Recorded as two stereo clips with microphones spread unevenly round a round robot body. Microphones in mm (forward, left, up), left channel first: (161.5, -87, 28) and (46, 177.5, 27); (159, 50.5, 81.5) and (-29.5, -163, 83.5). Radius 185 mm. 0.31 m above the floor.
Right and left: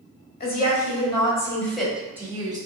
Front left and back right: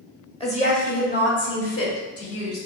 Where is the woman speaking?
20° right, 1.4 m; by 2.6 s 40° left, 1.6 m.